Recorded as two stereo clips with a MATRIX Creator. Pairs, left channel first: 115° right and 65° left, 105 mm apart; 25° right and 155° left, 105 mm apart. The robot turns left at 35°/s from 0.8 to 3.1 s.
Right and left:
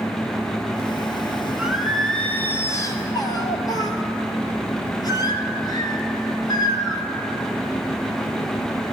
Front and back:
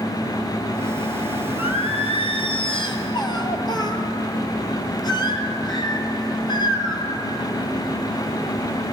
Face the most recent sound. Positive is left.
turn(degrees=-65)